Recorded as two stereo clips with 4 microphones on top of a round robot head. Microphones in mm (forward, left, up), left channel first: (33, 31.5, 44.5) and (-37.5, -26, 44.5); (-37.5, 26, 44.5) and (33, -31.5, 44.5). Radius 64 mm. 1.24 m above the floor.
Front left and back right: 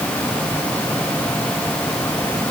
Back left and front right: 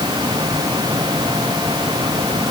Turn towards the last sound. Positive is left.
No sound to turn to.